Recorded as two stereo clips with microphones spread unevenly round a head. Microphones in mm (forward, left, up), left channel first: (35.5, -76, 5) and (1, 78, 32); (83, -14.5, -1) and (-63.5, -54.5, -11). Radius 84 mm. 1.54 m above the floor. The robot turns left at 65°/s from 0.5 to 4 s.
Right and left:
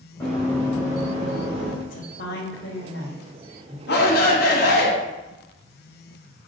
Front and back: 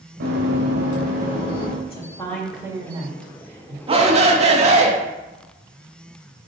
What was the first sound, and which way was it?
Running footsteps, 160° right.